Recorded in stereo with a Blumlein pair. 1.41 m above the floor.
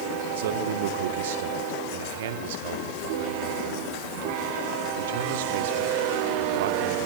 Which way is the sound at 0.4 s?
55° right.